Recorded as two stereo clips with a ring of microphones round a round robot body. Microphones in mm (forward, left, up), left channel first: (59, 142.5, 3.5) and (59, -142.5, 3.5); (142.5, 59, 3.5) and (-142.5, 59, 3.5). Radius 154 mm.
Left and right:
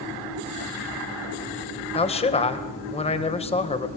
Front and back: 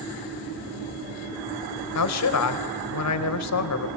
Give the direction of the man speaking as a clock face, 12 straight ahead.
11 o'clock.